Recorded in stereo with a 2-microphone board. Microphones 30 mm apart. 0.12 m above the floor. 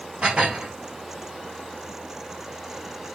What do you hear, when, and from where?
0.2 s dishes clattering: 40° right (ahead or behind), 2 m